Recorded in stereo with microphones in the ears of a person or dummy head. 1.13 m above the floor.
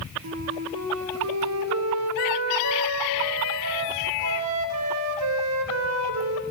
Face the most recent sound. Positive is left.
turn(degrees=-80)